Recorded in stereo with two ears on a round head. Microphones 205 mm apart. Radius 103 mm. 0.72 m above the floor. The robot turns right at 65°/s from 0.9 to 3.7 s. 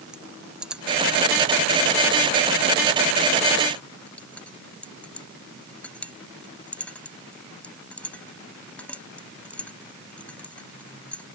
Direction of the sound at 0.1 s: 5° right (ahead or behind).